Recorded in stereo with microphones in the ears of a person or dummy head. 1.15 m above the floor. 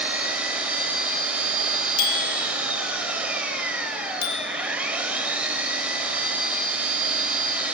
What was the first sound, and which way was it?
An engine running, 5° right (ahead or behind).